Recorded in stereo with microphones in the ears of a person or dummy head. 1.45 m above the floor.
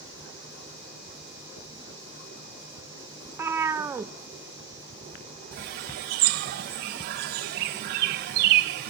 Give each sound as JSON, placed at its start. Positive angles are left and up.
{"t": 3.2, "sound": "a cat meowing", "side_deg": -15, "distance_m": 0.8}
{"t": 5.5, "sound": "a bird", "side_deg": -50, "distance_m": 0.7}